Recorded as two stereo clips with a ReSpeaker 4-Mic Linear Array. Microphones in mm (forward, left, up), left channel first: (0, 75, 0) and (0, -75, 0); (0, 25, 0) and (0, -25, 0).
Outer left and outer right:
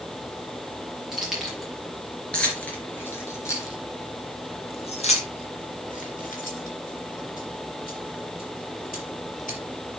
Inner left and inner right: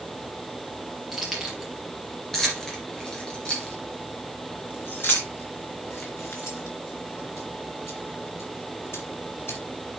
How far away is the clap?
No clap in this recording.